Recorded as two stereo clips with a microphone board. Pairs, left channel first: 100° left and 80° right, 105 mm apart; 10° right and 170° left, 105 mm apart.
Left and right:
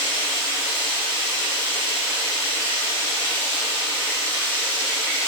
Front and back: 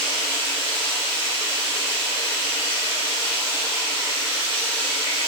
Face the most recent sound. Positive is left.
turn(degrees=40)